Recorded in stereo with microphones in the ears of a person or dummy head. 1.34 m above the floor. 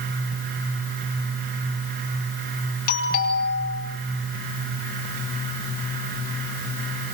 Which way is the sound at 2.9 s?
55° left (ahead or behind).